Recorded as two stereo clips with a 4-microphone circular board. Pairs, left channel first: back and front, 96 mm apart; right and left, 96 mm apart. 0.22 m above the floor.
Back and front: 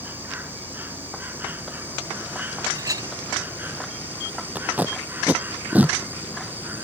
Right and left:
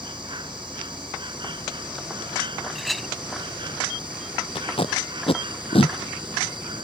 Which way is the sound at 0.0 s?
65° left.